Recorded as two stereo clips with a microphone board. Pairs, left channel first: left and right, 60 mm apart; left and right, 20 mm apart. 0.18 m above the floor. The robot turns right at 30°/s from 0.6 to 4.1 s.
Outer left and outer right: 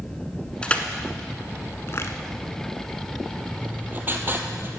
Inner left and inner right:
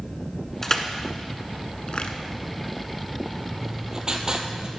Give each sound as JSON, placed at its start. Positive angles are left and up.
{"t": 0.6, "sound": "crushing", "side_deg": 15, "distance_m": 0.9}
{"t": 3.6, "sound": "writing", "side_deg": -20, "distance_m": 1.1}